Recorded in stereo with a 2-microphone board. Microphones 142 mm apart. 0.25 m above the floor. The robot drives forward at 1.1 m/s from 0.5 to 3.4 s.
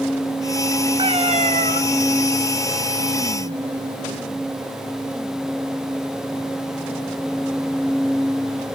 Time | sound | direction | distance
1.0 | a cat meowing | 40° right (ahead or behind) | 1.0 m